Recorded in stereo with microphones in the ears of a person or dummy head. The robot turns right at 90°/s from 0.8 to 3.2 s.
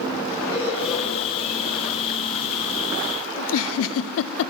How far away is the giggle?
About 0.6 m.